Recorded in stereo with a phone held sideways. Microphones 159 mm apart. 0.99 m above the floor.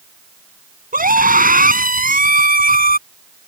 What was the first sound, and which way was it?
A scream, 65° right (ahead or behind).